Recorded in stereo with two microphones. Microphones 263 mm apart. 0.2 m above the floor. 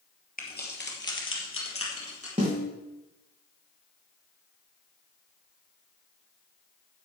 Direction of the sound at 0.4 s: 30° left (ahead or behind).